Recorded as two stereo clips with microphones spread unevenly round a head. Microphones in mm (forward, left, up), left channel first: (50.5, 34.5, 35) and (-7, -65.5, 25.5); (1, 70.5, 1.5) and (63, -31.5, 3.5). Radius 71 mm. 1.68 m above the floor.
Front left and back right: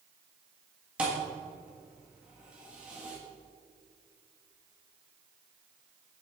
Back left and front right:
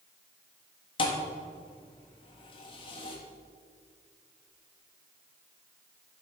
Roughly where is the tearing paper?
No tearing paper in this recording.